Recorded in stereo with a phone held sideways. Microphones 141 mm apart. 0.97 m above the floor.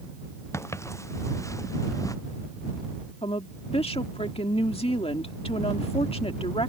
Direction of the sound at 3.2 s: 45° left (ahead or behind).